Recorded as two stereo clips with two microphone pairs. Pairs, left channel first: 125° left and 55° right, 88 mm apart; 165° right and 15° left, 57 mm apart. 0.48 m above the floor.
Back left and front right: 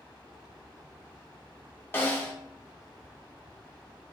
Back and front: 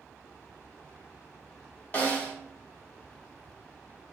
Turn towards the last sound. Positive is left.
turn(degrees=165)